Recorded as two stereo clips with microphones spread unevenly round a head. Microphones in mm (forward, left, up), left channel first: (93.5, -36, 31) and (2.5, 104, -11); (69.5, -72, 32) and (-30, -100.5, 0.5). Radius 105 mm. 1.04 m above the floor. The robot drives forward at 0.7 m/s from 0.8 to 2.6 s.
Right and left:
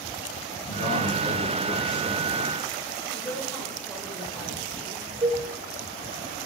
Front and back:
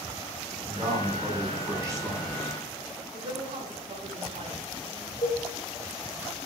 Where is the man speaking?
95° right, 4 m; by 2.6 s 110° right, 4 m.